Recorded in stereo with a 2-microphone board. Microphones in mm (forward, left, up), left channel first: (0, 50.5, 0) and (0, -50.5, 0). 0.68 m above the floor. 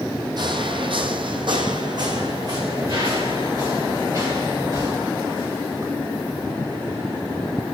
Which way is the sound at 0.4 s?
50° right (ahead or behind).